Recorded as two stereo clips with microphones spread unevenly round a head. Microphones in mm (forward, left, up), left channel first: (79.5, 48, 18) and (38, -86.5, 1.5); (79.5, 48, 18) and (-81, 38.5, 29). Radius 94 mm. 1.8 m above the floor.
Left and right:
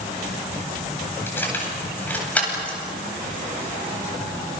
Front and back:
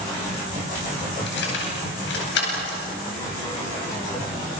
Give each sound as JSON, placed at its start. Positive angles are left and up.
{"t": 1.3, "sound": "keys jangling", "azimuth_deg": 0, "distance_m": 9.5}